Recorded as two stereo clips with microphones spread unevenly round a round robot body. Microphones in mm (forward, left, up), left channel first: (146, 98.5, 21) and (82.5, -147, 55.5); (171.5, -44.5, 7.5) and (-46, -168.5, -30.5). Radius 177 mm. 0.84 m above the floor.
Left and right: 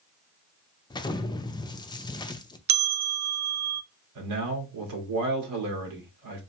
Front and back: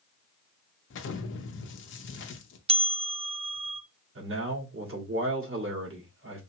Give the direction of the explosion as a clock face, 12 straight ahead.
11 o'clock.